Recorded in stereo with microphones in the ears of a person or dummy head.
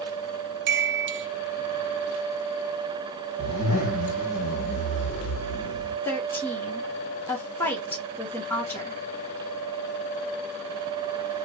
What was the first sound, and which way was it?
A chime, 55° right (ahead or behind).